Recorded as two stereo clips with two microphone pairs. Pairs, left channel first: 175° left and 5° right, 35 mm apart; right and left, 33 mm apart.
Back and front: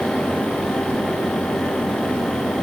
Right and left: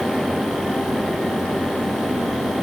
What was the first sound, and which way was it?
Only background noise.